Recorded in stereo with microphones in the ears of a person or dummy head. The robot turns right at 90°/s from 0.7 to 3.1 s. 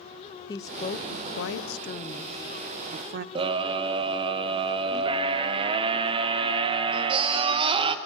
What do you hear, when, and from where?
0.5 s a woman speaking: 30° left, 0.6 m; by 3.2 s 115° right, 0.6 m
3.4 s a scream: 30° right (ahead or behind), 1.3 m